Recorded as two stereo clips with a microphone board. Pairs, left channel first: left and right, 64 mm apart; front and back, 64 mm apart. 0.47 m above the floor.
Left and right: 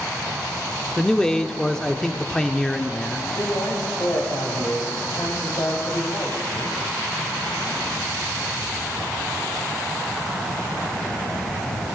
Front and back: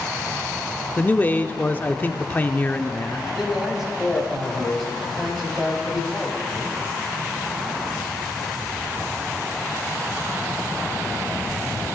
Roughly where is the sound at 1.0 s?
Ahead.